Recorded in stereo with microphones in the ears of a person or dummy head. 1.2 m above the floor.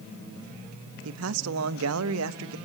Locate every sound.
1.1 s a man speaking: 85° right, 1.0 m